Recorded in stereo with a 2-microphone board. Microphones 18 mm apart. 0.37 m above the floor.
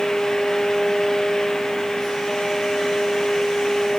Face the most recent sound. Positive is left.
No sound to turn to.